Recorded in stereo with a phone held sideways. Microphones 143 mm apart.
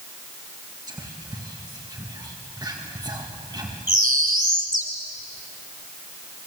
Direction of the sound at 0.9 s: 25° right (ahead or behind).